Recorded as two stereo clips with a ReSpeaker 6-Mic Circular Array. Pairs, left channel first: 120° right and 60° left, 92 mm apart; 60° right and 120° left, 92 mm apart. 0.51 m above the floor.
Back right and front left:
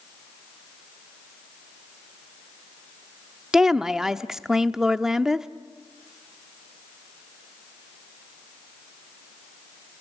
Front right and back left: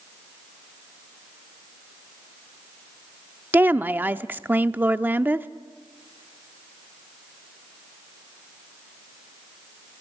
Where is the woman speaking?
130° left, 0.7 m.